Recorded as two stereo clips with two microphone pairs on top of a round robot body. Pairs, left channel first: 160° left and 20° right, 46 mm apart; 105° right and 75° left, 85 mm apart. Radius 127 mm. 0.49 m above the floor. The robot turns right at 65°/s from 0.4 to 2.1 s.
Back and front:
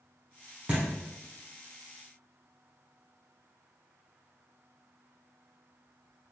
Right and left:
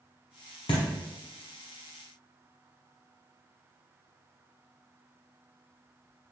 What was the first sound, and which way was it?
A thud, 85° right.